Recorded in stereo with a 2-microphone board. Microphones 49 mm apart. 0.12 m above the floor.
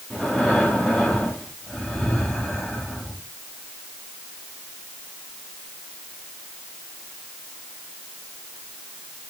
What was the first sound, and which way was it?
Breathing, 5° left (ahead or behind).